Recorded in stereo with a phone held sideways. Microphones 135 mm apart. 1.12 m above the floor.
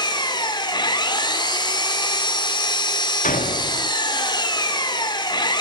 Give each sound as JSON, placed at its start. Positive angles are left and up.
{"t": 0.0, "sound": "an engine running", "side_deg": 30, "distance_m": 1.8}
{"t": 3.2, "sound": "a door slam", "side_deg": 75, "distance_m": 1.2}